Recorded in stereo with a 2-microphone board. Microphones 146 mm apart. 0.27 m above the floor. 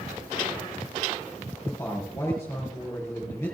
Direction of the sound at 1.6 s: 20° left (ahead or behind).